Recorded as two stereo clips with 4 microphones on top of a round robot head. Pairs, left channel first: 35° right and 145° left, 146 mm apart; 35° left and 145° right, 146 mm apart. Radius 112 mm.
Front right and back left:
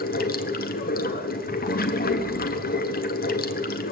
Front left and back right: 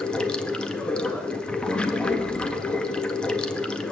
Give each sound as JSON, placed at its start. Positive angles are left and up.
{"t": 0.0, "sound": "running water", "azimuth_deg": -45, "distance_m": 1.0}